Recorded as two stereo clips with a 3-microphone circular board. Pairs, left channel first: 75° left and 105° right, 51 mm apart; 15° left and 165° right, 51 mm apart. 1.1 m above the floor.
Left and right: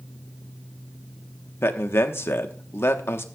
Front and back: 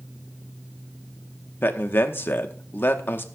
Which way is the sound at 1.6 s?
50° left.